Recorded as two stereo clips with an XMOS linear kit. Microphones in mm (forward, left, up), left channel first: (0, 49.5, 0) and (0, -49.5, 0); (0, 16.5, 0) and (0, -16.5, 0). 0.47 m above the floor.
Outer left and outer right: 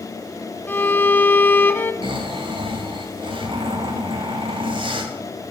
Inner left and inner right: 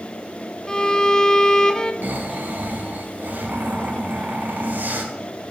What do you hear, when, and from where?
0.7 s a violin: 20° left (ahead or behind), 0.5 m
2.0 s snoring: 60° right (ahead or behind), 1.4 m